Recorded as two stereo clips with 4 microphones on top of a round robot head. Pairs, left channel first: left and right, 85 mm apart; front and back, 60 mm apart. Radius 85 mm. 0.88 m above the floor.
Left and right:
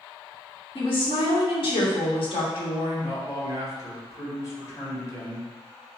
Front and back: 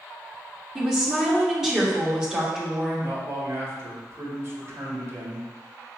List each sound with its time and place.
0.8 s a woman speaking: 100° left, 1.5 m
3.0 s a man speaking: 140° left, 1.6 m